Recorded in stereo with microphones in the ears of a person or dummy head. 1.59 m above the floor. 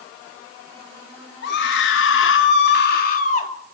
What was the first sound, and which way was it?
A scream, 70° left (ahead or behind).